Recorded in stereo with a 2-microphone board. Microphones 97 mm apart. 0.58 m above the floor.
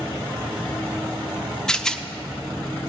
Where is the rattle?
5° left (ahead or behind), 0.6 m.